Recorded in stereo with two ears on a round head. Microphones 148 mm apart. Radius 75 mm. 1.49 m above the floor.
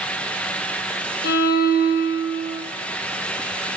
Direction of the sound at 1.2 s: 65° left (ahead or behind).